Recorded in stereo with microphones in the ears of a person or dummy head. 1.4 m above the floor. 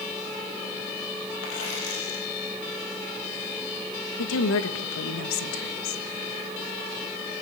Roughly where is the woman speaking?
Left.